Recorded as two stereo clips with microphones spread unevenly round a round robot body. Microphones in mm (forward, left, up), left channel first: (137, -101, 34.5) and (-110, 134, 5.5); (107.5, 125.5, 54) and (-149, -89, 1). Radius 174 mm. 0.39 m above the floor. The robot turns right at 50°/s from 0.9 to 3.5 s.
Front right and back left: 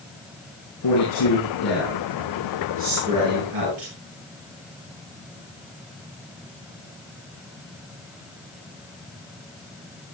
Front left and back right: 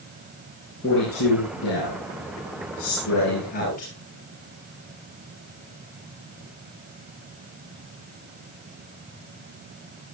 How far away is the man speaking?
About 9.5 m.